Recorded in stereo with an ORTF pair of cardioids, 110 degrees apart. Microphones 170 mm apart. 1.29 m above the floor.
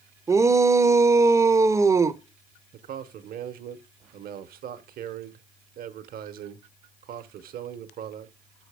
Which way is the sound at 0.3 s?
20° right.